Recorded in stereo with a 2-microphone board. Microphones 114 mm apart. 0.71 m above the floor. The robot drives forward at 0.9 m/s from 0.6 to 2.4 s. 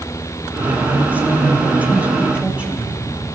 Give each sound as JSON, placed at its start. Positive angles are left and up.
{"t": 0.6, "sound": "a woman speaking", "side_deg": -15, "distance_m": 2.0}